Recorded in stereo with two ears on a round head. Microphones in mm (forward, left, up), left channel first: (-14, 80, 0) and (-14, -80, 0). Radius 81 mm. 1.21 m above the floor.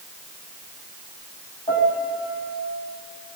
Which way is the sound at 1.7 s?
20° left (ahead or behind).